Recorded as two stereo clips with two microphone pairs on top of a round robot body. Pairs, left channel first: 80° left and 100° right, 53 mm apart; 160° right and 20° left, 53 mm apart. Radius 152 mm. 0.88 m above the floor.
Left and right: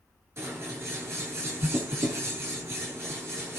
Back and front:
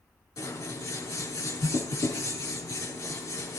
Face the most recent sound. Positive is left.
turn(degrees=-140)